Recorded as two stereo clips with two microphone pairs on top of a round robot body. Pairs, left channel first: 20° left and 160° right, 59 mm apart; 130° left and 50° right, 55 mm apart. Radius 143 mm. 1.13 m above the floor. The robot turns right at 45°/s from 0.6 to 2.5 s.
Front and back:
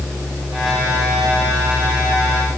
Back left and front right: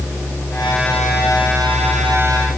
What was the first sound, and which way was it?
Only background noise.